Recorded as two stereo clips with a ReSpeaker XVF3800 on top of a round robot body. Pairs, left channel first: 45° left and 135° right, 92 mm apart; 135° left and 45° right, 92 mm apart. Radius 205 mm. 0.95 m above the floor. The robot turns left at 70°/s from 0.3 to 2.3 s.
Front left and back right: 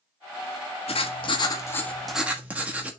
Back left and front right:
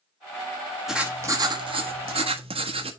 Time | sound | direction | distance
0.9 | writing | 40° left | 1.4 m